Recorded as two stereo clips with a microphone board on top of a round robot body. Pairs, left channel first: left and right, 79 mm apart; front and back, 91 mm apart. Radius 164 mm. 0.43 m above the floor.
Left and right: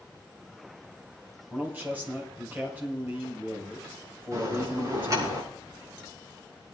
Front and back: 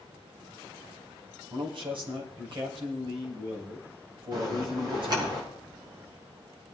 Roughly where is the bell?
Behind right.